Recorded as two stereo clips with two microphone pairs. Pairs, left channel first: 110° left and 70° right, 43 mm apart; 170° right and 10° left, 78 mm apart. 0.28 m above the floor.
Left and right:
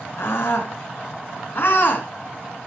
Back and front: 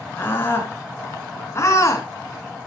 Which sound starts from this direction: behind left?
A scream, at 0.2 s.